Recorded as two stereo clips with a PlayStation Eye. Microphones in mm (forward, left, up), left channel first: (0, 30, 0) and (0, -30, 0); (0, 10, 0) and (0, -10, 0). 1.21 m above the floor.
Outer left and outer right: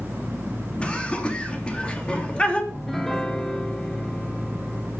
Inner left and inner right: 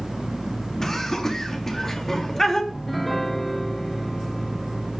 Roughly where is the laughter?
Centre.